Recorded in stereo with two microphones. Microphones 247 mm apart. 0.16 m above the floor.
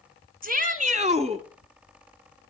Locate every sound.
0.4 s a shout: 35° right (ahead or behind), 1.3 m; by 1.4 s 25° right (ahead or behind), 1.3 m